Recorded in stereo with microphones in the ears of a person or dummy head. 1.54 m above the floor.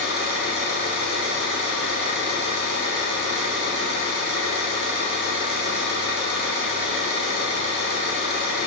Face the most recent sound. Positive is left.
turn(degrees=-45)  # may be behind; listen again after turning